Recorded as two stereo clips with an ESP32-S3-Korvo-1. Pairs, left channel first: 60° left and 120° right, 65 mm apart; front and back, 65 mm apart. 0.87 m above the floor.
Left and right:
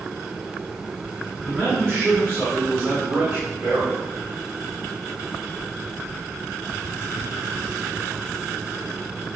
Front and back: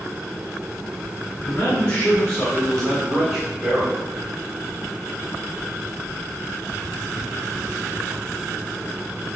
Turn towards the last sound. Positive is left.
turn(degrees=-145)